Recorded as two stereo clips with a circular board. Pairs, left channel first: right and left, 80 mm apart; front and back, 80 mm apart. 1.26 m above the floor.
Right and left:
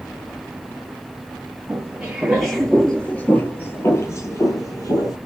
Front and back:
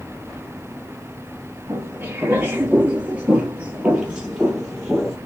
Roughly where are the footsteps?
Behind left.